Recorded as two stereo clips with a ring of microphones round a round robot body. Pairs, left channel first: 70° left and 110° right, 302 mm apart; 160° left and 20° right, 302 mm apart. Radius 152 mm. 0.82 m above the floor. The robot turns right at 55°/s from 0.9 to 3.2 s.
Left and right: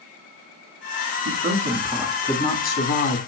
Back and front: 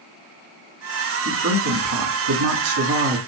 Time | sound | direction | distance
1.2 | a woman speaking | 70° right | 1.9 m